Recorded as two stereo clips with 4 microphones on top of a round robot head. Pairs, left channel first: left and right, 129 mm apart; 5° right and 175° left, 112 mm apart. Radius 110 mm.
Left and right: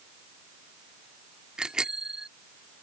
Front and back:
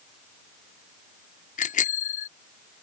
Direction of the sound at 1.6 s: 5° right.